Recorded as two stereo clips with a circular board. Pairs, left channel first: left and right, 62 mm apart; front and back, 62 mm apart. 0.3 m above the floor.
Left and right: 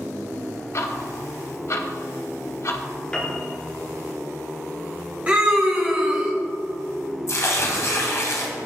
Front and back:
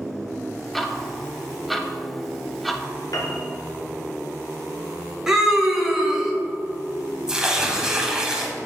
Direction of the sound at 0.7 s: 90° left.